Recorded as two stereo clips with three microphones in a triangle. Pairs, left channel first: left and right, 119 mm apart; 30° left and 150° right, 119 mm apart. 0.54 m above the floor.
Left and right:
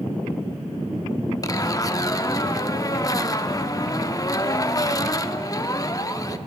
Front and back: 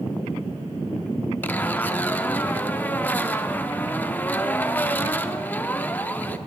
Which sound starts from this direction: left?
A zipper, at 1.4 s.